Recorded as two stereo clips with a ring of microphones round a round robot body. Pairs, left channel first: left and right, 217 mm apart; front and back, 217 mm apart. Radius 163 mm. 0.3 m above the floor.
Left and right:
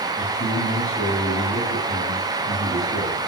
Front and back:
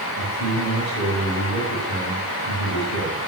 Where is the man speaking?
35° left, 4.5 m.